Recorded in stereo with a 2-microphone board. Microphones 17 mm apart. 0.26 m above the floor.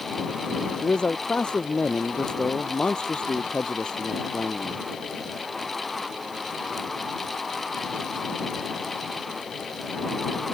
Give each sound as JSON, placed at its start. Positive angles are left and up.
{"t": 0.8, "sound": "a man speaking", "side_deg": 70}